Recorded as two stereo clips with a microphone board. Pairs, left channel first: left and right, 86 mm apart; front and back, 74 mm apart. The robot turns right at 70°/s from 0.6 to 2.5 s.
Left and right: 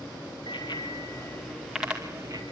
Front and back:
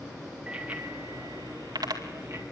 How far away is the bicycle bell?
About 2 m.